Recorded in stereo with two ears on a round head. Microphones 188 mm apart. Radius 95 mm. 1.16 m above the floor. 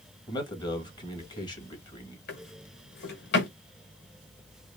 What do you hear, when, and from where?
0.3 s a man speaking: 20° left (ahead or behind), 1.7 m
2.3 s a drawer: 50° left (ahead or behind), 1.7 m